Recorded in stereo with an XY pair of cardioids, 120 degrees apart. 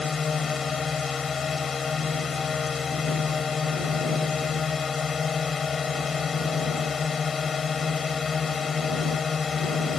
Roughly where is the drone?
Ahead left.